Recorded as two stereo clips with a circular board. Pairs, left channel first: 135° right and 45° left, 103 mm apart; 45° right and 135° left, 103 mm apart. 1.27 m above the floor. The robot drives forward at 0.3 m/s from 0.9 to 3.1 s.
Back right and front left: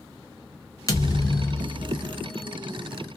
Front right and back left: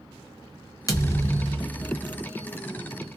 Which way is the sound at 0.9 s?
90° right.